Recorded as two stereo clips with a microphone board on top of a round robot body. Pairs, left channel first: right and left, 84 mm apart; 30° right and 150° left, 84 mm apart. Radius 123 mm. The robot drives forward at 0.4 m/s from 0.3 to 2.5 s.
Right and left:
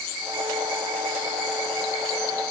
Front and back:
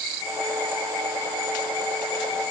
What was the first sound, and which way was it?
Only background noise.